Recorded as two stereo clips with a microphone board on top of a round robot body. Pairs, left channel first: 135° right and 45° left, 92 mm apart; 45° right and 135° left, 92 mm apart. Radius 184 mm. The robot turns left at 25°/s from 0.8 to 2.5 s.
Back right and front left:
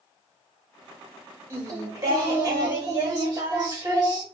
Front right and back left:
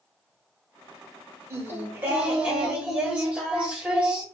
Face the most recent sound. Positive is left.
turn(degrees=65)